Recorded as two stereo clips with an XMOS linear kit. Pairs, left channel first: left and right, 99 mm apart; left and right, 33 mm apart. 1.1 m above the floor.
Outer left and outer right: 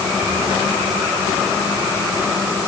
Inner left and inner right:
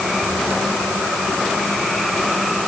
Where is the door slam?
I don't hear a door slam.